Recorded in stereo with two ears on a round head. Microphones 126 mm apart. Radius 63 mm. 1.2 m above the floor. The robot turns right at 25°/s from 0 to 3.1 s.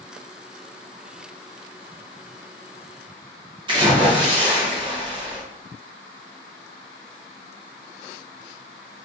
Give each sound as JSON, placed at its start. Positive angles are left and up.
{"t": 3.7, "sound": "a splash", "side_deg": -35, "distance_m": 0.7}